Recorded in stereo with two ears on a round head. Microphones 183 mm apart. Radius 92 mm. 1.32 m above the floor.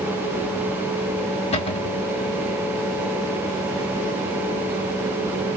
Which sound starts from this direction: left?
A cupboard door, at 1.5 s.